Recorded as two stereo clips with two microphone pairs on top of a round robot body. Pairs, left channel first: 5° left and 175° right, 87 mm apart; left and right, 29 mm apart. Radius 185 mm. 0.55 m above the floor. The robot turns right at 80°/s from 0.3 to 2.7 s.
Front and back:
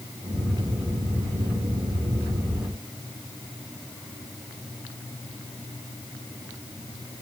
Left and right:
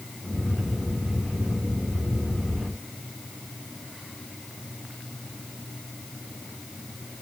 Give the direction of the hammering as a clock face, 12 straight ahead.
I don't hear hammering.